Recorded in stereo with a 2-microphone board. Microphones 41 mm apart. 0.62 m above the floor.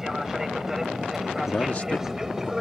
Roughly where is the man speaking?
Left.